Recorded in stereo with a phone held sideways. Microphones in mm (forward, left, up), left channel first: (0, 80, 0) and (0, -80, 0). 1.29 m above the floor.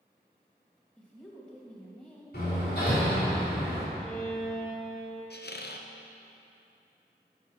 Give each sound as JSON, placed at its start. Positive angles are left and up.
{"t": 1.0, "sound": "a woman speaking", "side_deg": 5, "distance_m": 2.0}
{"t": 2.3, "sound": "hammering", "side_deg": 65, "distance_m": 3.5}
{"t": 4.0, "sound": "a violin", "side_deg": 5, "distance_m": 2.5}
{"t": 5.3, "sound": "a squeak", "side_deg": 75, "distance_m": 0.6}